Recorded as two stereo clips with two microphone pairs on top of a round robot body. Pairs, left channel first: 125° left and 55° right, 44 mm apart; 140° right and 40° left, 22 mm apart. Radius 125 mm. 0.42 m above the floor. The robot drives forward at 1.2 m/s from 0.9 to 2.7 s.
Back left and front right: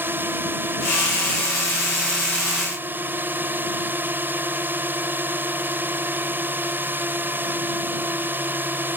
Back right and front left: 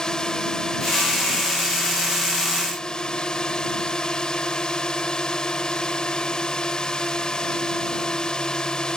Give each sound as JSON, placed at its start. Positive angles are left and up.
{"t": 0.0, "sound": "a drone", "azimuth_deg": -85}